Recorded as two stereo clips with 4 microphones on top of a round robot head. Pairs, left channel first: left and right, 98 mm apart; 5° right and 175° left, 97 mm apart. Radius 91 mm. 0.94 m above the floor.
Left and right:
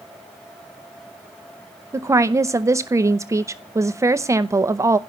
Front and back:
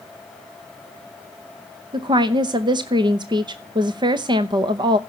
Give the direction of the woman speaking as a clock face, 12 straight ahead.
5 o'clock.